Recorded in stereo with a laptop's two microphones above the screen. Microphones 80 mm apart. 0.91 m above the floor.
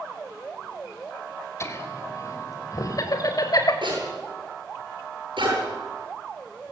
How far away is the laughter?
About 4 m.